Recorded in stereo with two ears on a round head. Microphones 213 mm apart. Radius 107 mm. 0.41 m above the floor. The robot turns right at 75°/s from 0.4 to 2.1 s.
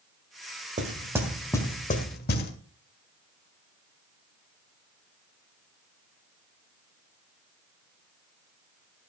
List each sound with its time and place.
0.8 s knocking: 30° right (ahead or behind), 1.7 m; by 2.5 s 40° left (ahead or behind), 1.7 m